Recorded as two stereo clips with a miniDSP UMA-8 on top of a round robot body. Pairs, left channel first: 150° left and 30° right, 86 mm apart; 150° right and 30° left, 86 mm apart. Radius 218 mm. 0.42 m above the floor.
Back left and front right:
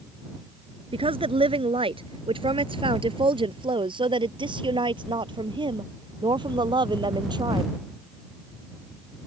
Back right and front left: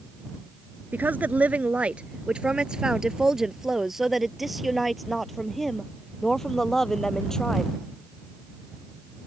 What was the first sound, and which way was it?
A woman speaking, 40° right.